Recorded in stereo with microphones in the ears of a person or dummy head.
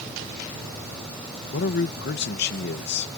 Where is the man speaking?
55° left (ahead or behind).